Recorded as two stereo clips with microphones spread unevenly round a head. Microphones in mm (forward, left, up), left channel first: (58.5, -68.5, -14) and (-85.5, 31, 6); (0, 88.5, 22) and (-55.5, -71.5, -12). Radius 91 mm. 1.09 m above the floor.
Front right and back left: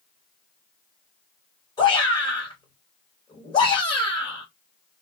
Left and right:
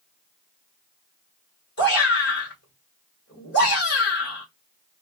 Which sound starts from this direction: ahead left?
A shout, at 1.8 s.